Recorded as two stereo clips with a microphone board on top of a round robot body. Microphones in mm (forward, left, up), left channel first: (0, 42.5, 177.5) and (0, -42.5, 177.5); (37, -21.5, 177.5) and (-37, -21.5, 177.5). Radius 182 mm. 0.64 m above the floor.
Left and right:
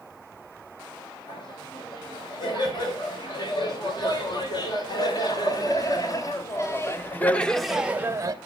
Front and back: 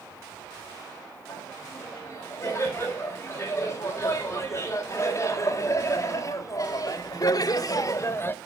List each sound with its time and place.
1.3 s laughter: 60° left, 4.5 m; by 8.3 s 50° right, 0.8 m